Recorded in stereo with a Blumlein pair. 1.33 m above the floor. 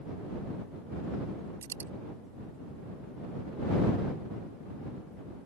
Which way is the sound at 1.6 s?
65° right.